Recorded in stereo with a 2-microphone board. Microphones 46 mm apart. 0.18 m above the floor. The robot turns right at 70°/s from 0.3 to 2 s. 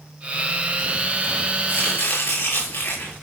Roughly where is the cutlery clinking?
I don't hear cutlery clinking.